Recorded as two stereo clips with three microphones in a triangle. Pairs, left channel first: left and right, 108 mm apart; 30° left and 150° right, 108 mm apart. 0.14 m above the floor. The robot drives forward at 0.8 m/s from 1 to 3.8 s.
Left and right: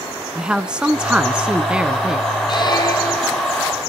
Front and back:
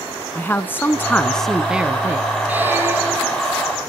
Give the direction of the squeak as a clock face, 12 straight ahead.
7 o'clock.